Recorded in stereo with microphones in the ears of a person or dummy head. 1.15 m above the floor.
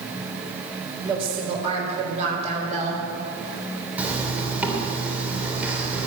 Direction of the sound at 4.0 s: 10° right (ahead or behind).